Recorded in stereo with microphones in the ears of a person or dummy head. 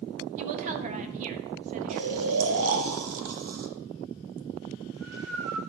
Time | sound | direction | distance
0.4 | a woman speaking | 40° right (ahead or behind) | 1.4 m
1.9 | snoring | 75° right (ahead or behind) | 1.6 m